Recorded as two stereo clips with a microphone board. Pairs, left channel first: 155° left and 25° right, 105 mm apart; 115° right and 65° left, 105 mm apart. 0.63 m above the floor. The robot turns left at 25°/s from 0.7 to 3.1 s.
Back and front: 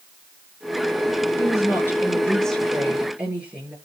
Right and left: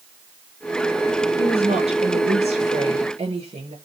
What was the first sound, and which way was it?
A woman speaking, 100° left.